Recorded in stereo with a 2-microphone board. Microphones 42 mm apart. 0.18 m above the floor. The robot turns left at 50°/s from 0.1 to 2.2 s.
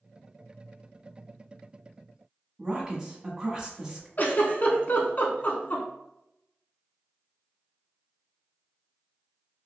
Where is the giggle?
45° left (ahead or behind), 0.8 m.